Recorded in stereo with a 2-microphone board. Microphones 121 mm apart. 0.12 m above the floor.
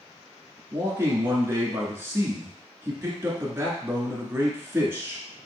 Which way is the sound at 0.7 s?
20° right (ahead or behind).